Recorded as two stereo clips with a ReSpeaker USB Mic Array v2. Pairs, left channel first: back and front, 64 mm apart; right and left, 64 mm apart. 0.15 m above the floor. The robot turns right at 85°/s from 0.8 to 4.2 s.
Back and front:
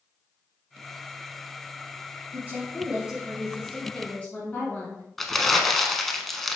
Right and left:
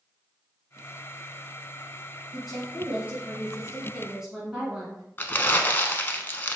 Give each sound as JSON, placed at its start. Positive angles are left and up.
{"t": 2.3, "sound": "a woman speaking", "azimuth_deg": 0, "distance_m": 1.6}
{"t": 5.2, "sound": "crumpling", "azimuth_deg": -95, "distance_m": 0.6}